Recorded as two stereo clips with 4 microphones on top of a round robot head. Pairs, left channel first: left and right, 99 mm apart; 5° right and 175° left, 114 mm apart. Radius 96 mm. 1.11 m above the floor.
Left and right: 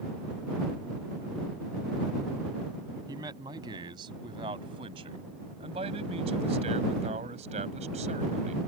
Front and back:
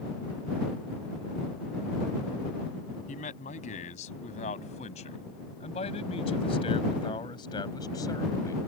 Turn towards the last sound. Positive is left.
turn(degrees=-75)